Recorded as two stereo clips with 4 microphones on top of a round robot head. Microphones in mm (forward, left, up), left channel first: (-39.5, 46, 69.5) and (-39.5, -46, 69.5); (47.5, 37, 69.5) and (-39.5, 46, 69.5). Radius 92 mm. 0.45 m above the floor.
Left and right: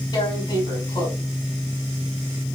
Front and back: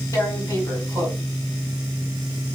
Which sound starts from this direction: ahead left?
Tearing paper, at 0.1 s.